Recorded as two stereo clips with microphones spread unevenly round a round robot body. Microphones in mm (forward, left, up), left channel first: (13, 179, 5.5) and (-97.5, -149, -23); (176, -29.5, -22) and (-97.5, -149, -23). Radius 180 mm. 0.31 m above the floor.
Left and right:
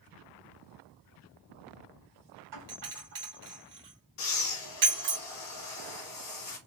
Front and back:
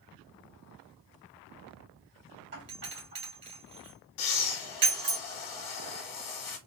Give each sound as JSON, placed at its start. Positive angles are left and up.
{"t": 2.5, "sound": "a doorbell", "azimuth_deg": -130, "distance_m": 2.0}
{"t": 4.2, "sound": "breathing", "azimuth_deg": 15, "distance_m": 1.2}